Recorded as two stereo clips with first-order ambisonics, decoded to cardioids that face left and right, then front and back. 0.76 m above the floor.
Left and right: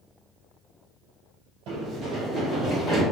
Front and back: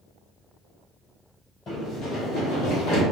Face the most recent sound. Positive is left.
turn(degrees=10)